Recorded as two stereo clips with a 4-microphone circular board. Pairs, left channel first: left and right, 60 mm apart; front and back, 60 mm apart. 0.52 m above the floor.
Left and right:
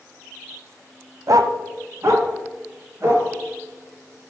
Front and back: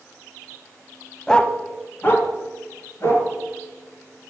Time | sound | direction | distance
1.3 | a dog barking | 80° right | 0.7 m